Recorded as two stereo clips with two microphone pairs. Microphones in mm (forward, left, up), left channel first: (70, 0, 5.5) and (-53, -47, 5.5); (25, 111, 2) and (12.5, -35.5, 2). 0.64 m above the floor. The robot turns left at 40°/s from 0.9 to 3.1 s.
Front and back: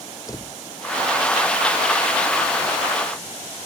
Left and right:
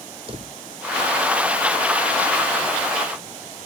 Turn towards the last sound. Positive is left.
turn(degrees=-130)